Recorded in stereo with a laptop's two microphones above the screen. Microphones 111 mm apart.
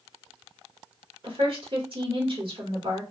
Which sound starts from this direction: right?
A woman speaking, at 1.2 s.